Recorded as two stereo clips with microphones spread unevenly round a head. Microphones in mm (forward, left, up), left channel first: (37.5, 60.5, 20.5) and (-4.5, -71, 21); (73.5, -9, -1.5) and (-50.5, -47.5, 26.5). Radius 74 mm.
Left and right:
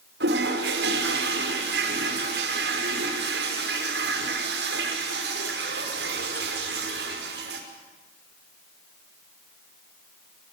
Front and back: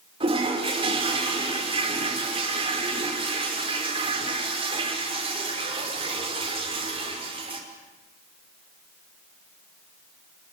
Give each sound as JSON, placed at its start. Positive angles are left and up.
{"t": 0.2, "sound": "a toilet flushing", "azimuth_deg": -115, "distance_m": 5.5}